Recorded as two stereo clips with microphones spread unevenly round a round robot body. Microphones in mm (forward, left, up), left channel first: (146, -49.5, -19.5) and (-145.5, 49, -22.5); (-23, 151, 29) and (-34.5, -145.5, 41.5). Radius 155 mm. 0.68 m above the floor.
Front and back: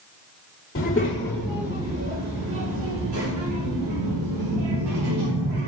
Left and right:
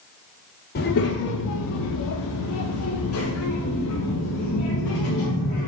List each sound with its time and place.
0.8 s a child speaking: 40° left, 1.0 m; by 5.7 s 145° left, 3.5 m